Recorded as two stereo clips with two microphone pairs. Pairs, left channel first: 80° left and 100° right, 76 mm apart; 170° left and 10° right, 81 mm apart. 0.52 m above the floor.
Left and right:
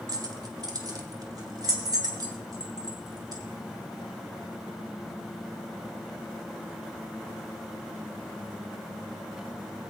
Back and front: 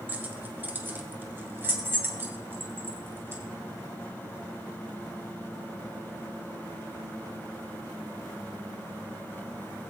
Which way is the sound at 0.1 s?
75° right.